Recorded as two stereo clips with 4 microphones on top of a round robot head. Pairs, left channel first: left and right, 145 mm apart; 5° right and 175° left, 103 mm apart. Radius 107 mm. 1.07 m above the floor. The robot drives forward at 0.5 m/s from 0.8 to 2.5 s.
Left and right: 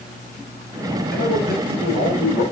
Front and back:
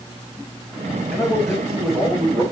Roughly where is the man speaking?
Left.